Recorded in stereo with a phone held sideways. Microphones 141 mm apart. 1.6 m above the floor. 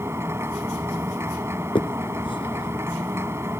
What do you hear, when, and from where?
0.0 s a machine running: 20° right (ahead or behind)
1.8 s a finger snap: 35° left (ahead or behind)